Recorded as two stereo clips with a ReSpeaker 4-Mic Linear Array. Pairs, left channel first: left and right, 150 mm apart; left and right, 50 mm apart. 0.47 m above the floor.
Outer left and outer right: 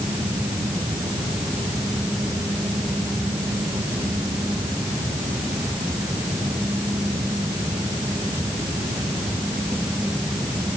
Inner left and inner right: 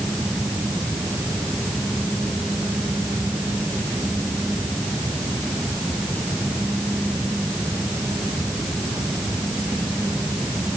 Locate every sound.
Only background noise.